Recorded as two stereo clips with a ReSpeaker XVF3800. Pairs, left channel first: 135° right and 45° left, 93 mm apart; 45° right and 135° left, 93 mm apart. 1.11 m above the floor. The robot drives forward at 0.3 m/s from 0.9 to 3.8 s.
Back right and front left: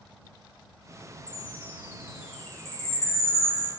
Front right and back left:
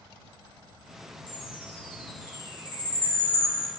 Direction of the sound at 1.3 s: 60° right.